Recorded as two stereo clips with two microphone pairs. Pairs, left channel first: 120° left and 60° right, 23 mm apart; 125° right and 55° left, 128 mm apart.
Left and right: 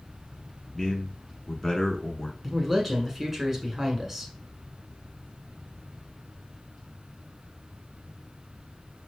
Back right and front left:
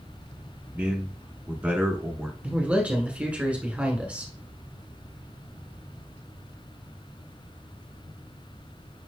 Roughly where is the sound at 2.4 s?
Ahead.